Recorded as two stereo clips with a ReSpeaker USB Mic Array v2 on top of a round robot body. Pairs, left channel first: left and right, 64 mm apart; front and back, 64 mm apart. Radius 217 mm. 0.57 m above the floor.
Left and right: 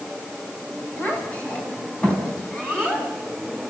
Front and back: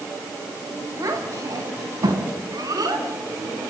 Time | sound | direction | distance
1.0 | a child speaking | 155° left | 4 m